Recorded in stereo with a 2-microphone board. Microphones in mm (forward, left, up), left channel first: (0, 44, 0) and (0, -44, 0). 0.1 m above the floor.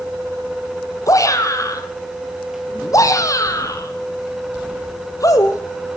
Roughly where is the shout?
Left.